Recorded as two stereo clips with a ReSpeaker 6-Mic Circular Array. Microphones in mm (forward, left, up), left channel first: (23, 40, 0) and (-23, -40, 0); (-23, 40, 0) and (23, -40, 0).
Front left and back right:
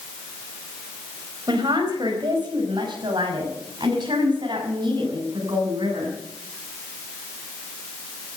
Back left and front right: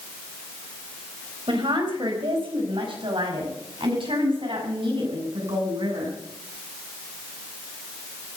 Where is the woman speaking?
85° right, 4 m; by 6.1 s 80° right, 7 m.